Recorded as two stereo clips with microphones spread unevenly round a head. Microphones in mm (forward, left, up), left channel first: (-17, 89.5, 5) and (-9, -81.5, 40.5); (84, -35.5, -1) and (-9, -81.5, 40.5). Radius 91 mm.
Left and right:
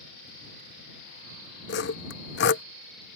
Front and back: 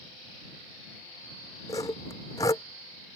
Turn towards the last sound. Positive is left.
turn(degrees=110)